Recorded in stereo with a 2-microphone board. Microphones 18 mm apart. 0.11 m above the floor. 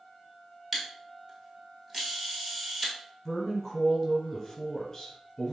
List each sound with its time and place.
0.7 s a camera shutter: 20° right (ahead or behind), 1.1 m
3.2 s a woman speaking: 25° left (ahead or behind), 1.4 m